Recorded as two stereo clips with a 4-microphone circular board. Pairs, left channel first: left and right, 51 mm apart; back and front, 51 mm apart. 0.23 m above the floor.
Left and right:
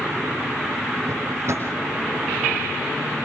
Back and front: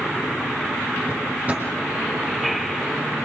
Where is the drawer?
60° right, 6.5 m.